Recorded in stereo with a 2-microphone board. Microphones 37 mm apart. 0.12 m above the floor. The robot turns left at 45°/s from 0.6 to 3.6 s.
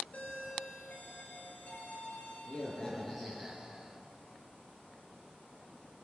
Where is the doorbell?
125° left, 3.5 m; by 4.0 s 10° right, 3.5 m.